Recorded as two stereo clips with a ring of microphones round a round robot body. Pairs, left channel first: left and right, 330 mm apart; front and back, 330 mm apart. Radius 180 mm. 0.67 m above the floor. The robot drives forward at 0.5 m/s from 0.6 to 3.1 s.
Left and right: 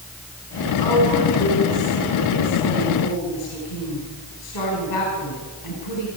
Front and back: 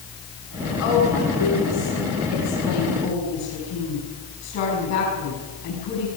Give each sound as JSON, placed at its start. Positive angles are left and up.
{"t": 0.8, "sound": "a woman speaking", "azimuth_deg": 50, "distance_m": 7.5}